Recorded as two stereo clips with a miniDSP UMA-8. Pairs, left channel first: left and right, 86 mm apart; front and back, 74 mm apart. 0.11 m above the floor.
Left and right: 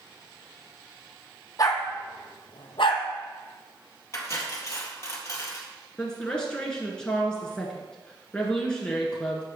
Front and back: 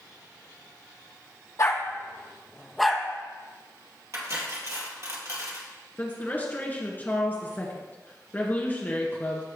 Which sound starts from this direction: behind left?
Cutlery clinking, at 4.1 s.